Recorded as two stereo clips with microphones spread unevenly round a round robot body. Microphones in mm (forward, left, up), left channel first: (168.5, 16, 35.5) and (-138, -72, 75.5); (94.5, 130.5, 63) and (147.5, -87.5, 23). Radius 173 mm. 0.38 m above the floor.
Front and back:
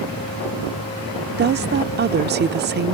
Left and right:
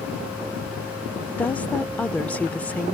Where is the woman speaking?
160° right.